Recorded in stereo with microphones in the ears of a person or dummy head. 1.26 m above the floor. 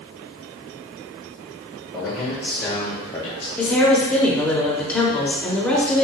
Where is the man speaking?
5° left (ahead or behind), 1.6 m; by 3.5 s 35° left (ahead or behind), 0.7 m.